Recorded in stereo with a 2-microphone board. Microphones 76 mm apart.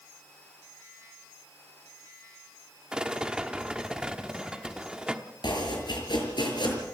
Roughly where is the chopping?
Left.